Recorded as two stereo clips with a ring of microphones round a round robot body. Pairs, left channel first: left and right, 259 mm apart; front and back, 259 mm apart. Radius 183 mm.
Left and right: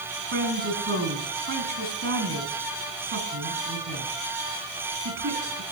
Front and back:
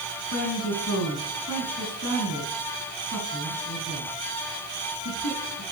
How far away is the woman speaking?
About 4.5 m.